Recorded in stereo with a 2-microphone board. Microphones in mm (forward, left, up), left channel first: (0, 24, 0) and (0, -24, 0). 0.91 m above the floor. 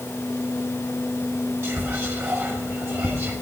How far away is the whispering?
About 1.2 m.